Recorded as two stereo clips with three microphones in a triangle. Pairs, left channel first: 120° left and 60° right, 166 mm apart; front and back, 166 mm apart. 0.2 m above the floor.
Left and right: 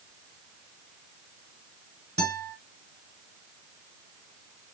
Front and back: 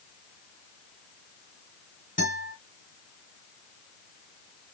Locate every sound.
2.2 s a guitar: 20° right, 2.5 m